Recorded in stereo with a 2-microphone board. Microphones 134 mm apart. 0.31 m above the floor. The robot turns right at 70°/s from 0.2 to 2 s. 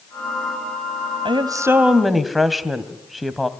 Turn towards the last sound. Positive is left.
turn(degrees=0)